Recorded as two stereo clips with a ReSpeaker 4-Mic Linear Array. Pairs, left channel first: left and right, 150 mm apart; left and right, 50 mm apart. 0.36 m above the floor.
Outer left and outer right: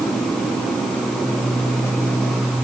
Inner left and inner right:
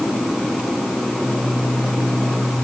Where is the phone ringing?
I don't hear a phone ringing.